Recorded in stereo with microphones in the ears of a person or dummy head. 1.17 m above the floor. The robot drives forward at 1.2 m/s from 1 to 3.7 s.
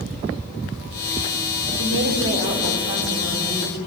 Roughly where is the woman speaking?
Right.